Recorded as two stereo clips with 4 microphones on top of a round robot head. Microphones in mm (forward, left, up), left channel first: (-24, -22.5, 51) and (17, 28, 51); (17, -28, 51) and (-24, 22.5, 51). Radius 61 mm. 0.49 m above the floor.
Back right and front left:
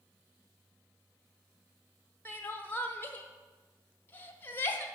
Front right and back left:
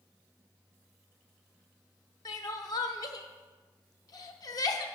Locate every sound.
2.2 s crying: 70° right, 0.8 m